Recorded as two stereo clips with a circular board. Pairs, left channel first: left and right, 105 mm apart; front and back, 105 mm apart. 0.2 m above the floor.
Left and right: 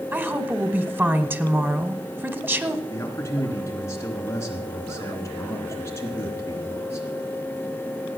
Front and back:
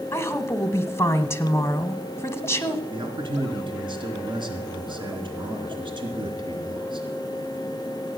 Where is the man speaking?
150° left, 3 m.